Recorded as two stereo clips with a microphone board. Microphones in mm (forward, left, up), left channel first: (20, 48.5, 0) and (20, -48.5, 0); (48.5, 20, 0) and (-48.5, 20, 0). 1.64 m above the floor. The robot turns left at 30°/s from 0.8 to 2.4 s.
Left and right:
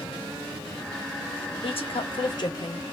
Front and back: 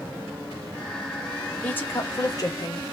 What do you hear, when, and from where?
1.6 s a woman speaking: 75° left, 1.0 m; by 2.8 s 55° left, 1.0 m